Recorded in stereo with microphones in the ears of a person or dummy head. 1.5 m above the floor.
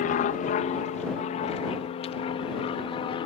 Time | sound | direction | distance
0.0 | an aircraft | 40° left (ahead or behind) | ?